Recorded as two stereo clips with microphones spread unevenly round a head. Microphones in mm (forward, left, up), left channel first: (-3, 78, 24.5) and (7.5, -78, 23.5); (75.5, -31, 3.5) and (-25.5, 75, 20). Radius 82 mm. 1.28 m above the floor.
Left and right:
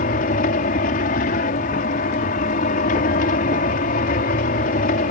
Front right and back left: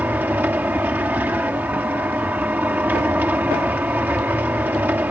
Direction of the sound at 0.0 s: 55° left.